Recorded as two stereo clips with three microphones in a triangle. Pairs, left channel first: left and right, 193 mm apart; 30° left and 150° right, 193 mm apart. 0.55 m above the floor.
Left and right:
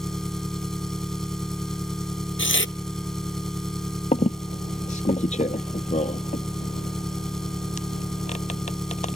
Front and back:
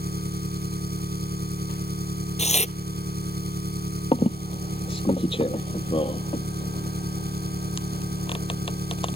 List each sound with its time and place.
0.0 s an engine running: straight behind
2.4 s tearing paper: 85° left
4.1 s a squeak: 70° left